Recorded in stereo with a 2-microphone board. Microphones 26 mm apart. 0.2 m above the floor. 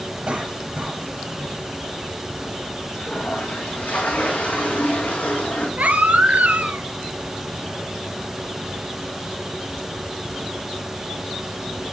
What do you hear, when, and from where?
0.3 s a cough: 45° right (ahead or behind), 5.5 m
2.9 s a toilet flushing: 75° left (ahead or behind), 4.5 m
5.8 s a baby crying: 80° right, 1.0 m